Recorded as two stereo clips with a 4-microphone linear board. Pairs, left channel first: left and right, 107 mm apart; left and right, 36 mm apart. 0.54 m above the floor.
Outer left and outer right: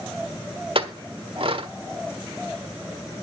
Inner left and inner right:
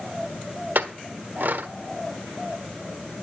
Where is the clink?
60° right (ahead or behind), 1.3 m.